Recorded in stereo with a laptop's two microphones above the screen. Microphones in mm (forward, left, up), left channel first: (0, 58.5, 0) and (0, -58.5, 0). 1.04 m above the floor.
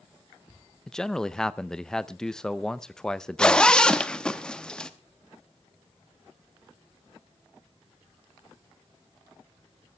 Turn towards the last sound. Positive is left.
turn(degrees=5)  # may be behind; listen again after turning